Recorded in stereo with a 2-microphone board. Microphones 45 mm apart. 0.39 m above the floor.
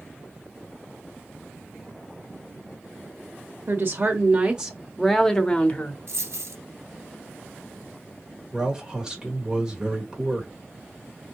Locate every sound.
3.7 s a woman speaking: 45° right (ahead or behind), 1.0 m; by 6.0 s 35° left (ahead or behind), 1.0 m
6.1 s a dropped coin: 85° right, 1.2 m
8.5 s a man speaking: 15° right (ahead or behind), 1.8 m